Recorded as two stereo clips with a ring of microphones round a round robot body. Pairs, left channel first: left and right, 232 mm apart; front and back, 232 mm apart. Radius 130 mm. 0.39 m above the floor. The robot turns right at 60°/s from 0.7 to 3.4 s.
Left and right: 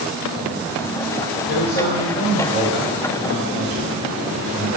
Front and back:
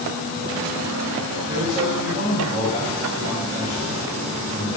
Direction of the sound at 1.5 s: 100° left.